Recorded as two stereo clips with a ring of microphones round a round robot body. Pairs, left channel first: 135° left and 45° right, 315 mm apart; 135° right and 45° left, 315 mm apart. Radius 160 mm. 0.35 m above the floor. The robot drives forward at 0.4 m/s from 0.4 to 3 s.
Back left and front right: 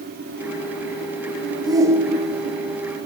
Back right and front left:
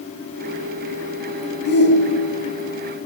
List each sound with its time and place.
1.6 s a shout: 110° right, 1.2 m; by 2.7 s 140° right, 1.4 m